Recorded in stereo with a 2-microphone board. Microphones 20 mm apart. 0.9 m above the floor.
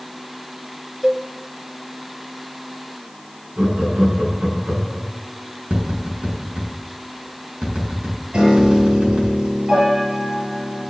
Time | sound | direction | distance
1.0 | a cowbell | 40° right (ahead or behind) | 1.3 m
3.6 | laughter | 75° right (ahead or behind) | 8.5 m
5.7 | tapping | 70° right (ahead or behind) | 6.5 m
8.3 | a piano | 50° right (ahead or behind) | 7 m